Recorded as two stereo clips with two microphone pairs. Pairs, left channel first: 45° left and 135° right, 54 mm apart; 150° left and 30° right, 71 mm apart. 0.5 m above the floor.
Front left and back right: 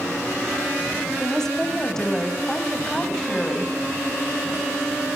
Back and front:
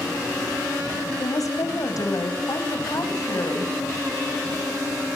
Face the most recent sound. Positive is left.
turn(degrees=125)